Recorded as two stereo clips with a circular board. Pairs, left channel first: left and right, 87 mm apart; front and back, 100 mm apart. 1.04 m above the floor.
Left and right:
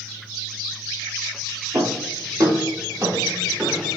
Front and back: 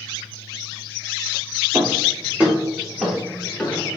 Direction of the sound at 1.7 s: 120° right.